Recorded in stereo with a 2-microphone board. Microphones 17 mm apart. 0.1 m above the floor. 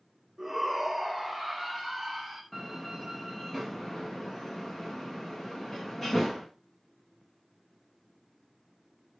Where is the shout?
25° right (ahead or behind), 6 m; by 2.4 s 10° right (ahead or behind), 6 m.